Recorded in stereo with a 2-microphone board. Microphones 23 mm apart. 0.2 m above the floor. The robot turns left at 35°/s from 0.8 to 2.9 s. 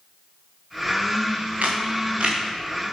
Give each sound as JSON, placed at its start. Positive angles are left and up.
{"t": 1.6, "sound": "a camera shutter", "side_deg": -80, "distance_m": 6.5}